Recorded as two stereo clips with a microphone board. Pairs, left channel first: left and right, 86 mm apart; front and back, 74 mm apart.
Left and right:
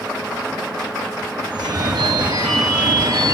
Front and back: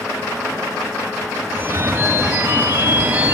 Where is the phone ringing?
120° right, 1.8 m.